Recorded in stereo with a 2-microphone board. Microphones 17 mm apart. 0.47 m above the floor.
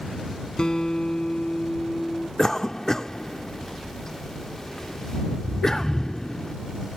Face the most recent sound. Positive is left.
turn(degrees=25)  # may be behind; listen again after turning